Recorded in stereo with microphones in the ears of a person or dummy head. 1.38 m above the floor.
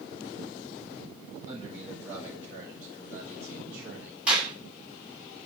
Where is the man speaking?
15° right (ahead or behind), 6.5 m; by 4.2 s 10° right (ahead or behind), 3.5 m.